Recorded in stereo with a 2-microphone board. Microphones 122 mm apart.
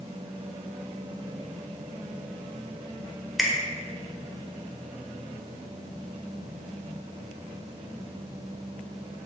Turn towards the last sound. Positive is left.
turn(degrees=0)  # may be behind; listen again after turning